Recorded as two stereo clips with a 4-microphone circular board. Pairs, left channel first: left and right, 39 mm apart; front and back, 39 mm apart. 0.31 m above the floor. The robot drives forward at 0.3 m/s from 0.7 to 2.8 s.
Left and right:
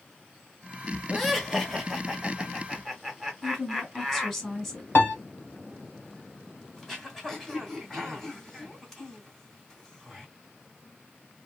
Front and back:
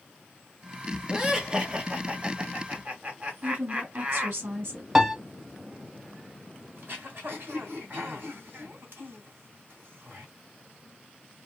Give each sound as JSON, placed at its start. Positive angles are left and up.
{"t": 1.1, "sound": "laughter", "azimuth_deg": 170, "distance_m": 1.3}
{"t": 3.4, "sound": "a woman speaking", "azimuth_deg": 180, "distance_m": 2.5}
{"t": 5.0, "sound": "a piano", "azimuth_deg": 105, "distance_m": 0.7}
{"t": 6.8, "sound": "throat clearing", "azimuth_deg": 175, "distance_m": 2.0}